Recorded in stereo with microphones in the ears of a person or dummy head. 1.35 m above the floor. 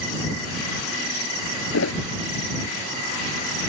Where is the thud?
85° left.